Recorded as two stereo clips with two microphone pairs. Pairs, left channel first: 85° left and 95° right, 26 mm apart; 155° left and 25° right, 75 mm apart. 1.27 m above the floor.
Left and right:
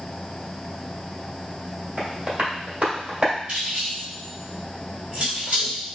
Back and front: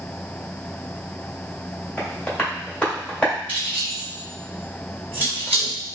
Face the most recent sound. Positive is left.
turn(degrees=-145)